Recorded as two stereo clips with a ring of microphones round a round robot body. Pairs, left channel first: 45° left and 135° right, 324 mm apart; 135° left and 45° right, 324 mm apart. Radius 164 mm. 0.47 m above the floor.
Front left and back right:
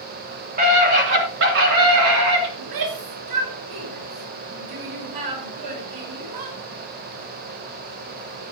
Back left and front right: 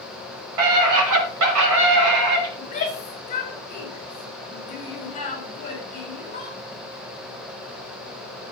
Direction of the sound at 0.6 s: 70° right.